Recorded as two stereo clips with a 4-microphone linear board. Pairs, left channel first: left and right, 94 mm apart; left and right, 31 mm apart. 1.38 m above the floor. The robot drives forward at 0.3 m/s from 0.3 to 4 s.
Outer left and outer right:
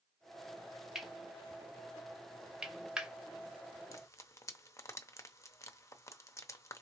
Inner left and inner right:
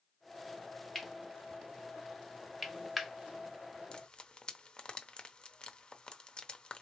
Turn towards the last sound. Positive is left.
turn(degrees=30)  # may be behind; listen again after turning